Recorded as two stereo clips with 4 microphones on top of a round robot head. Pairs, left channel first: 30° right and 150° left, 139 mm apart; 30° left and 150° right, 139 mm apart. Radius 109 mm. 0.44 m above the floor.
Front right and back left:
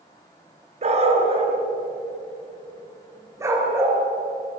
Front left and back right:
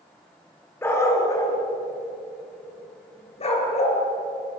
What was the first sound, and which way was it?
A dog barking, 105° left.